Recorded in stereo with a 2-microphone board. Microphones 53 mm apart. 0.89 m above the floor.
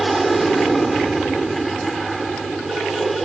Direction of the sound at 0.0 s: Centre (ahead or behind).